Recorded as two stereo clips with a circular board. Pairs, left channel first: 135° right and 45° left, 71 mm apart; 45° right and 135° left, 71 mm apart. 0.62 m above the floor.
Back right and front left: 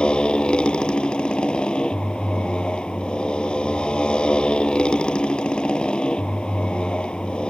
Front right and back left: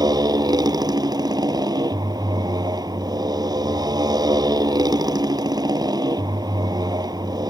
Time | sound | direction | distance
0.0 | a motorcycle | 150° left | ?